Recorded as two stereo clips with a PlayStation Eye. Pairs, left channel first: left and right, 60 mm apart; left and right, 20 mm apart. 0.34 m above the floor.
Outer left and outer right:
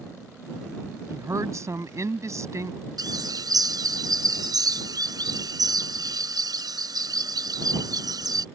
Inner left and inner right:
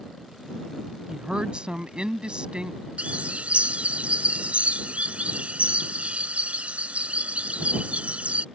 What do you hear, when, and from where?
1.1 s a woman speaking: 50° right (ahead or behind)
3.0 s a bird: 75° right (ahead or behind)